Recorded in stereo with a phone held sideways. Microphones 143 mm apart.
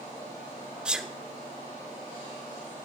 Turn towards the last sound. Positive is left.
turn(degrees=-5)  # may be behind; listen again after turning